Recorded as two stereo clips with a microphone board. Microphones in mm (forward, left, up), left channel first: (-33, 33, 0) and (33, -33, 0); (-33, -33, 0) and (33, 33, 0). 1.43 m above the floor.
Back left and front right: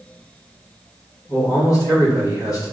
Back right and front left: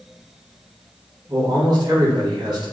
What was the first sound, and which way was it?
A man speaking, 85° left.